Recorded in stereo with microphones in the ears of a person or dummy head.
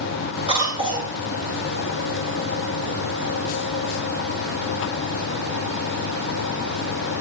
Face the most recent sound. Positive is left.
turn(degrees=-25)  # may be behind; listen again after turning